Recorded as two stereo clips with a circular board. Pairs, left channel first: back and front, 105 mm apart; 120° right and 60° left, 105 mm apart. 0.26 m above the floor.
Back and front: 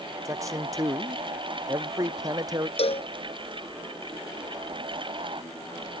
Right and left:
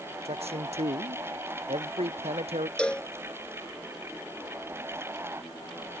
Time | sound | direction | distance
0.2 | a man speaking | 60° left | ?
2.8 | a cowbell | 160° left | ?